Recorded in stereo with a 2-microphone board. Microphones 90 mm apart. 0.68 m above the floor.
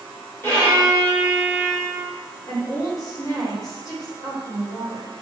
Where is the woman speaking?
45° left (ahead or behind), 1.4 m.